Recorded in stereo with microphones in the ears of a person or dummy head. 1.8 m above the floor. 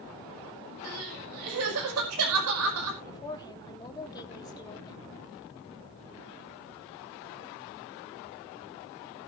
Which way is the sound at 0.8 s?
80° right.